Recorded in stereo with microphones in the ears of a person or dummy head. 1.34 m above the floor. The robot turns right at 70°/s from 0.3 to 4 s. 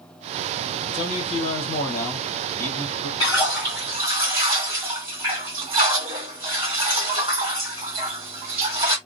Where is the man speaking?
60° left, 1.2 m; by 3.1 s 145° right, 1.2 m.